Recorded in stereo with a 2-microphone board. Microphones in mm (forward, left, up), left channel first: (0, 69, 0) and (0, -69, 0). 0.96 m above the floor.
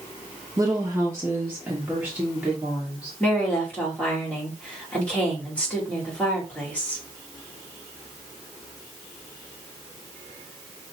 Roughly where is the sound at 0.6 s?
Right.